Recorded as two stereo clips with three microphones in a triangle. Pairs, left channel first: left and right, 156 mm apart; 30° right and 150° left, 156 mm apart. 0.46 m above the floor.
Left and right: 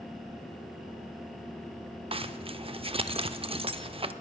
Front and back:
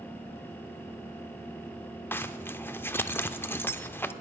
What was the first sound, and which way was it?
A zipper, 100° right.